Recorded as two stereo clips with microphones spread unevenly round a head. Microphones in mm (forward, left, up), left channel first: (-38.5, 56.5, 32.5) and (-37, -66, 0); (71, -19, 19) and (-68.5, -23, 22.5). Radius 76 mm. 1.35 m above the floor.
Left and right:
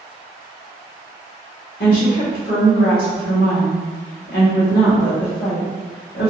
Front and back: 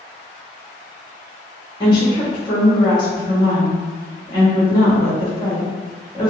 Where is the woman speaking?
65° left, 1.4 m.